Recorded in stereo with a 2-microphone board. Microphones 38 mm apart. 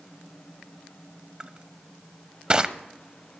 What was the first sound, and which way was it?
Crushing, 25° right (ahead or behind).